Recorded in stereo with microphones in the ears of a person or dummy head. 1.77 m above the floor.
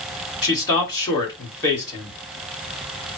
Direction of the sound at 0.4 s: 20° left (ahead or behind).